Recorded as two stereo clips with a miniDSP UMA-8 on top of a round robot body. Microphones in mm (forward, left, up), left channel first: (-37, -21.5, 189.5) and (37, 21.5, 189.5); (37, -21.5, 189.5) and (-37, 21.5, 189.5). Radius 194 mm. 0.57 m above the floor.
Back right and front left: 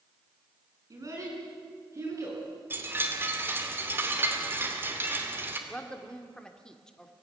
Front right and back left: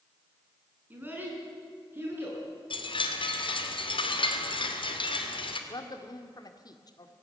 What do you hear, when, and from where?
0.9 s a child speaking: 80° left, 6 m; by 2.4 s 85° left, 8.5 m
2.7 s a chime: 35° right, 2.5 m
5.7 s a woman speaking: 70° right, 1.9 m